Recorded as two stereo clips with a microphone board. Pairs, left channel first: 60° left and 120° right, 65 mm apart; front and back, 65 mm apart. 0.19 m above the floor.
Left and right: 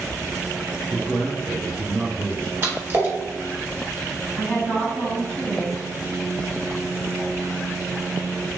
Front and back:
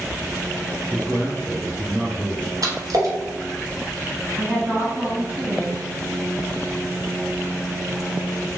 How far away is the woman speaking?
About 1.7 m.